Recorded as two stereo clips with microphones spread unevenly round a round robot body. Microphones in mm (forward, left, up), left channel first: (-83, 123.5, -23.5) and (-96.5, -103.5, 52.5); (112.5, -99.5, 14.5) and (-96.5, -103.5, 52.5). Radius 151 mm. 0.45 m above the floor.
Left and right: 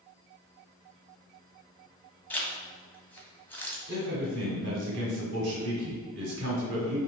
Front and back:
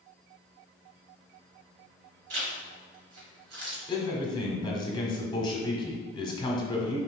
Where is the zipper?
165° left, 1.3 m.